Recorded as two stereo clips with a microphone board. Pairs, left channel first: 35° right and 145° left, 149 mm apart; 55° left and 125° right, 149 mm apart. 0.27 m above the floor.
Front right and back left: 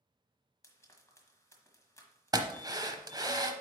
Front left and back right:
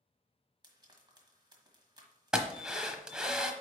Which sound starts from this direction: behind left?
A drill, at 2.3 s.